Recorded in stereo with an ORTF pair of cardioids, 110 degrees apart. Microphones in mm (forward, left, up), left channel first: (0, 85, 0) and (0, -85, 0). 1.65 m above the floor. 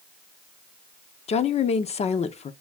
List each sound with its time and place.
1.3 s a woman speaking: 40° left, 0.9 m